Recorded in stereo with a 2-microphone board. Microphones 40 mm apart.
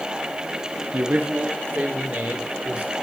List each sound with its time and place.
0.9 s a man speaking: 50° right (ahead or behind), 1.0 m; by 2.9 s 35° right (ahead or behind), 3.5 m